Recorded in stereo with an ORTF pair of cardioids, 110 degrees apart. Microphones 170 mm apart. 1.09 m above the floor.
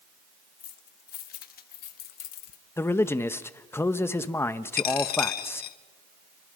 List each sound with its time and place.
0.6 s keys jangling: 55° left, 1.8 m; by 2.6 s 70° left, 0.7 m
2.8 s a man speaking: 15° left, 1.1 m
4.8 s a dropped coin: 65° left, 1.2 m